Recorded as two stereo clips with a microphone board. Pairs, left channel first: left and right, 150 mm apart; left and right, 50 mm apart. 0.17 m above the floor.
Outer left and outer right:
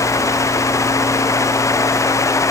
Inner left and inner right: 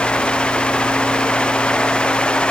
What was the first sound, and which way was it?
Only background noise.